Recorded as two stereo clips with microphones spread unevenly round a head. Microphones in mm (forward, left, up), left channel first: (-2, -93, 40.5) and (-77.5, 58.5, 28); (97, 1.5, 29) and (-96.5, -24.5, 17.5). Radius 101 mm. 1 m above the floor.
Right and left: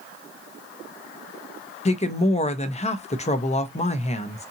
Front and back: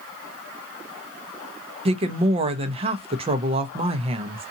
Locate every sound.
1.9 s a woman speaking: 115° right, 0.7 m